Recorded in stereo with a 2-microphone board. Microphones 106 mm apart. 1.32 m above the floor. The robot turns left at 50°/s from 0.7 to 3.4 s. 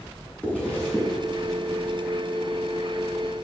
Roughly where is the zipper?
Centre.